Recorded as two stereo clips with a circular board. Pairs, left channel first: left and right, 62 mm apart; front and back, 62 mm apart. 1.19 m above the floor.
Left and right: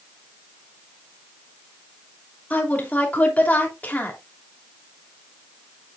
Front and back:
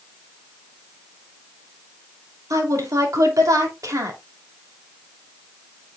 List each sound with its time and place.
2.5 s a woman speaking: 155° left, 2.5 m